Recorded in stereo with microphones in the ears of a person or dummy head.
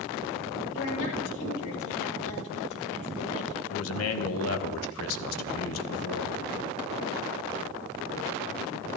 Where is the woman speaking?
65° left (ahead or behind), 3.5 m.